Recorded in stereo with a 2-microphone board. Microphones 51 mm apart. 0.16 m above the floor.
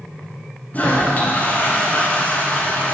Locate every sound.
0.7 s a toilet flushing: 35° left (ahead or behind), 1.3 m